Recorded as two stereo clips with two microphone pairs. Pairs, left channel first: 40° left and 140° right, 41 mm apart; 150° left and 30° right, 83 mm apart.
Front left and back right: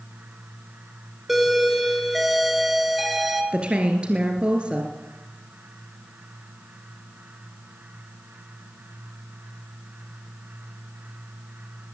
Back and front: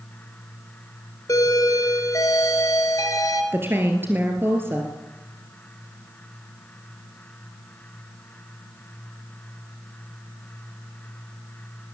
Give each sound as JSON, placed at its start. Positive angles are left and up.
{"t": 1.3, "sound": "a doorbell", "azimuth_deg": 135, "distance_m": 2.5}
{"t": 3.5, "sound": "a woman speaking", "azimuth_deg": -85, "distance_m": 2.5}